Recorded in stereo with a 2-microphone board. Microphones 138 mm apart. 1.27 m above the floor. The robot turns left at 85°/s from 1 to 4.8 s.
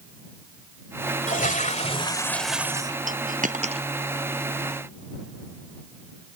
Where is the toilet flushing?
105° left; by 3.0 s 40° right.